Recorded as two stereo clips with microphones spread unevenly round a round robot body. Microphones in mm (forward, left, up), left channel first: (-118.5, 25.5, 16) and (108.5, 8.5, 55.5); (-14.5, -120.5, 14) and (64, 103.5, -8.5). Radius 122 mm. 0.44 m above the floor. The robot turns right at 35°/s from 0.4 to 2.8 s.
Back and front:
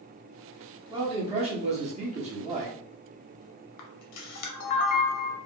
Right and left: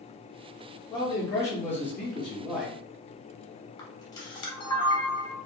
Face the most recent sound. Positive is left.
turn(degrees=175)